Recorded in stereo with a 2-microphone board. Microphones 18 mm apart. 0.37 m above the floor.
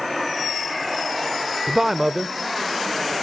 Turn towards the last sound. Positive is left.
turn(degrees=10)  # may be behind; listen again after turning